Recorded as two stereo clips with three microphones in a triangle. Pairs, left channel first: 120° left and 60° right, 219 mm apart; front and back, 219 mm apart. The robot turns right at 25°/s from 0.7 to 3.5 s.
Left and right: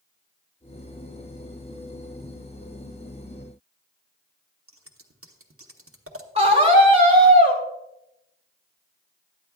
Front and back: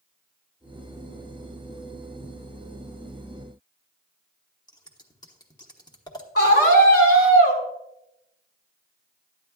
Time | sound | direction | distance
4.7 | scissors | 70° right | 1.0 m
6.3 | a scream | straight ahead | 3.5 m